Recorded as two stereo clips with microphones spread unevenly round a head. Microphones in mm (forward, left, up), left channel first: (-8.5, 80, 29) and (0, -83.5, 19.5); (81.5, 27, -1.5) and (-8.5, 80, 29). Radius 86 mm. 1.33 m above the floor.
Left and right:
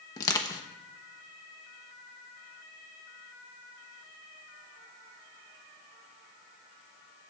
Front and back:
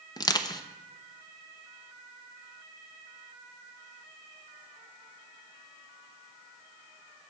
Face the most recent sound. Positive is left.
turn(degrees=25)